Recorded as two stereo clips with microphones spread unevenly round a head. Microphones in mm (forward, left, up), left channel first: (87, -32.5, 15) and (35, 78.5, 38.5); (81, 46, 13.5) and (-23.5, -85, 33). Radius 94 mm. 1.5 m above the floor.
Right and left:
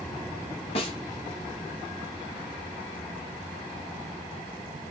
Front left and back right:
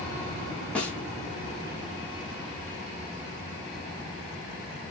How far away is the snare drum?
About 1.2 m.